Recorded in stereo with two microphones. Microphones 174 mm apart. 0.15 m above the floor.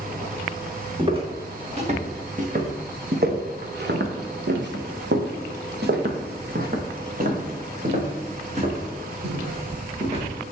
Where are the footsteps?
30° right (ahead or behind), 2.5 m; by 10.2 s 35° right (ahead or behind), 4 m.